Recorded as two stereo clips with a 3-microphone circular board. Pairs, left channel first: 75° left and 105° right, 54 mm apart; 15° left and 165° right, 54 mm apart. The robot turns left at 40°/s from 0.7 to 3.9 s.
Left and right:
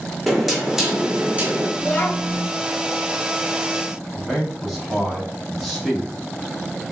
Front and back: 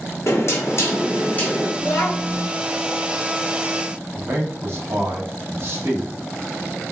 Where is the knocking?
20° right, 1.0 m; by 1.7 s 55° right, 1.0 m.